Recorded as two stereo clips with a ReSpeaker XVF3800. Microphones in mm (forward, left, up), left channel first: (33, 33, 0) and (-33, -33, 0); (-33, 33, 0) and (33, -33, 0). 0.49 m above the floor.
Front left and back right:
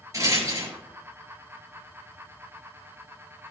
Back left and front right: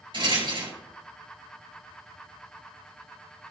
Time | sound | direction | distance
0.1 | a rattle | 80° right | 4.5 m